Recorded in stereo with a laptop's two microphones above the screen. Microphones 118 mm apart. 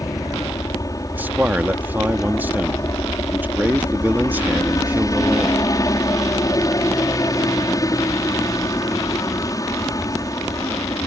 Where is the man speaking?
15° right (ahead or behind).